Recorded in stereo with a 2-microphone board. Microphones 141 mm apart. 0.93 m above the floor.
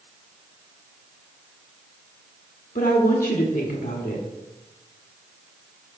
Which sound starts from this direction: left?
A woman speaking, at 2.8 s.